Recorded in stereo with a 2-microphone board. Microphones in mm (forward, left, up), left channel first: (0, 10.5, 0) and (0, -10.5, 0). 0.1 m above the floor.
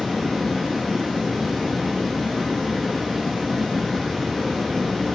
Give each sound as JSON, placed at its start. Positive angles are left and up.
{"t": 0.0, "sound": "running water", "side_deg": -10, "distance_m": 2.5}